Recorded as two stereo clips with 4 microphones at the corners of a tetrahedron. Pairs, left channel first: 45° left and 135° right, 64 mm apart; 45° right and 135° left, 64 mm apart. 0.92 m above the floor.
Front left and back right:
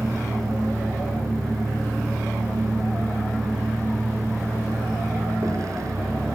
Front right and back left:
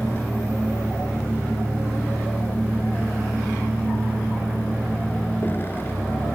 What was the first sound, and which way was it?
A vehicle, 105° right.